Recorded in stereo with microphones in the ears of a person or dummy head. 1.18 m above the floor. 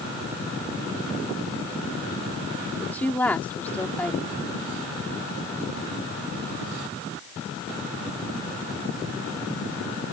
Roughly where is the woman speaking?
Centre.